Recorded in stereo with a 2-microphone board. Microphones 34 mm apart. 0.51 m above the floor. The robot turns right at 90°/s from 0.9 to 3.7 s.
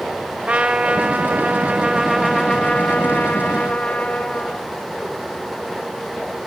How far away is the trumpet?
About 0.6 m.